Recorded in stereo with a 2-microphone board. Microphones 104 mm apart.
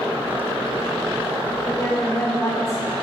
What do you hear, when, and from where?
1.6 s a woman speaking: 35° left (ahead or behind), 4 m